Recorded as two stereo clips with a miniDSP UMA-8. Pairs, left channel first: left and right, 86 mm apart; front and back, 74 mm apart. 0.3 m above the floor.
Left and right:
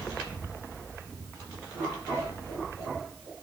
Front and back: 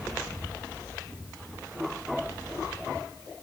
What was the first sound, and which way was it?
Only background noise.